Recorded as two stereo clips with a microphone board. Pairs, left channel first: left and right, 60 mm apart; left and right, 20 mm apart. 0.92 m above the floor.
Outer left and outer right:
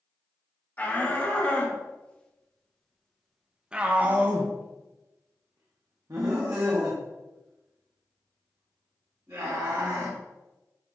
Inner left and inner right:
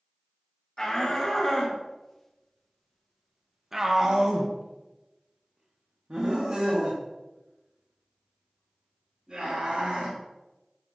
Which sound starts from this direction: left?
A shout, at 0.8 s.